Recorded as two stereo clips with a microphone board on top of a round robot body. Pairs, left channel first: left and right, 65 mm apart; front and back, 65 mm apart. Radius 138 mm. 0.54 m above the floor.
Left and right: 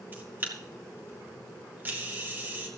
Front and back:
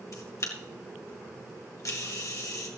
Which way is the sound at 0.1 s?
30° right.